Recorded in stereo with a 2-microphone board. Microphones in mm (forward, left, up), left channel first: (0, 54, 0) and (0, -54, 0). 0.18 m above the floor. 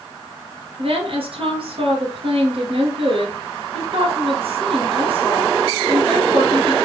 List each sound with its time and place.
0.8 s a woman speaking: 60° right (ahead or behind), 2 m